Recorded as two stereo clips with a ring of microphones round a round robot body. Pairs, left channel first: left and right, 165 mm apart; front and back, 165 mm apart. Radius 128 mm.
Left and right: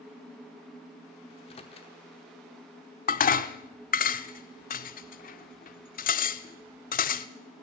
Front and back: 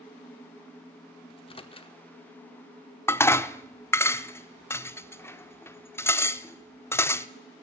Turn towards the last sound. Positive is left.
turn(degrees=75)